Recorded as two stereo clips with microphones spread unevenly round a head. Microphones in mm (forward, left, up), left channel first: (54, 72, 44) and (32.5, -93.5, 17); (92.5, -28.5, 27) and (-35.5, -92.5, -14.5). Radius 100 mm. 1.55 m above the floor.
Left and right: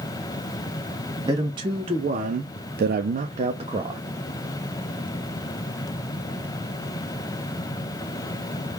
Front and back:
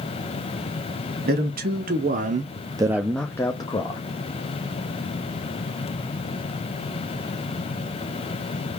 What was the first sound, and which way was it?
A man speaking, 165° right.